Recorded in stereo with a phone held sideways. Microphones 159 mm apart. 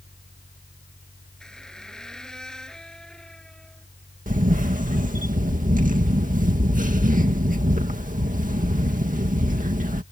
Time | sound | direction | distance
0.0 | a fan | 65° left (ahead or behind) | ?
1.4 | a squeak | 5° left (ahead or behind) | ?
4.3 | a camera shutter | 55° right (ahead or behind) | ?